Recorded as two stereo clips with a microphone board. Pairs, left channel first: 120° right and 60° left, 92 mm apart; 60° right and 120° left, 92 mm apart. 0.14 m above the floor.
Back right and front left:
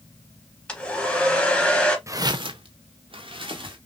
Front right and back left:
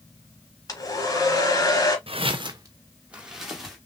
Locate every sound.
0.7 s a hair dryer: 45° right, 1.4 m
2.1 s footsteps: 120° left, 0.8 m; by 3.8 s 30° left, 1.9 m